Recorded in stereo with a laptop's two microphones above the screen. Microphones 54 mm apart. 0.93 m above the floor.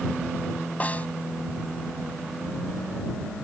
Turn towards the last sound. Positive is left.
turn(degrees=30)  # may be behind; listen again after turning